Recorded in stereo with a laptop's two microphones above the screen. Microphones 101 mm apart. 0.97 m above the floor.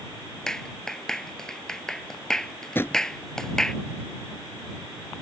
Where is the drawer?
25° left (ahead or behind).